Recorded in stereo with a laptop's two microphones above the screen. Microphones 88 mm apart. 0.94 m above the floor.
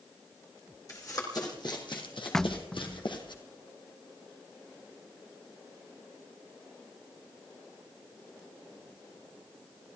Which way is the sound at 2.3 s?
10° left (ahead or behind).